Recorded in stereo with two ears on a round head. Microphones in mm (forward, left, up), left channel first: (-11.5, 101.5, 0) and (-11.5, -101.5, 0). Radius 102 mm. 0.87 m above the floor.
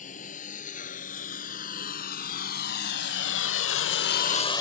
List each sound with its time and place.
0.0 s a lawn mower: 35° left (ahead or behind); by 4.6 s 15° left (ahead or behind)